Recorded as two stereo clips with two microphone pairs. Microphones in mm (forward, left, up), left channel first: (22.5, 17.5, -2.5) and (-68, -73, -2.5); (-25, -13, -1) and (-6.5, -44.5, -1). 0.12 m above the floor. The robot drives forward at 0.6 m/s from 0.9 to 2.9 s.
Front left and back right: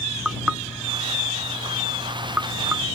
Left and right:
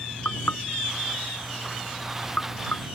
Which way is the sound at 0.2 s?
140° left.